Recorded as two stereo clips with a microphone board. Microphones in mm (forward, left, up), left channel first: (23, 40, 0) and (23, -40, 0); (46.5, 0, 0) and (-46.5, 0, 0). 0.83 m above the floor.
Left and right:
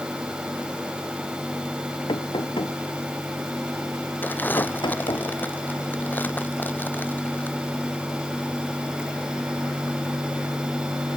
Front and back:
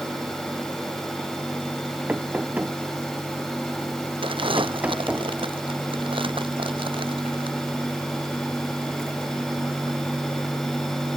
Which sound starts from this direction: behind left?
Crumpling, at 4.2 s.